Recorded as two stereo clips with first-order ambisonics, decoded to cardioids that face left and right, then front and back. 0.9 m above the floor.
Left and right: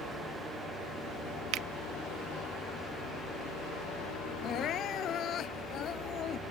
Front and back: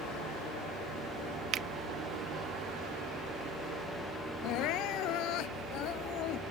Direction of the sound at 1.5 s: 125° right.